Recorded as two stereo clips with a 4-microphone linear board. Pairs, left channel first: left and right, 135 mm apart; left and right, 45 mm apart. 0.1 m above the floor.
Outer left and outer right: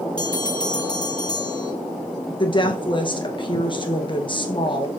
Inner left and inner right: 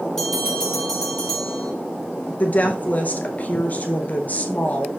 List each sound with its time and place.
0.2 s a bell: 5° left (ahead or behind), 3 m
2.4 s a woman speaking: 35° left (ahead or behind), 1.6 m